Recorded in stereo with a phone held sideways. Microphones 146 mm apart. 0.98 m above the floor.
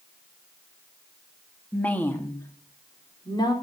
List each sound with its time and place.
1.7 s a woman speaking: 5° left (ahead or behind), 1.8 m; by 3.5 s 30° left (ahead or behind), 3.5 m